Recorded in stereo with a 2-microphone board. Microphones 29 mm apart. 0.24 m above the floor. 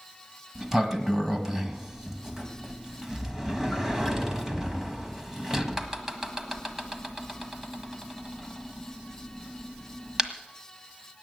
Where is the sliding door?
15° right (ahead or behind), 1.5 m.